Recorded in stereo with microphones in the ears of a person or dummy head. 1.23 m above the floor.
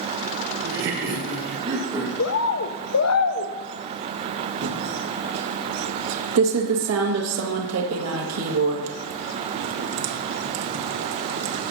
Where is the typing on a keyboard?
80° right, 1.5 m.